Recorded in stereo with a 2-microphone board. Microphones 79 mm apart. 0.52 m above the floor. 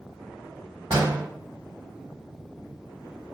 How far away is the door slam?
About 1.6 m.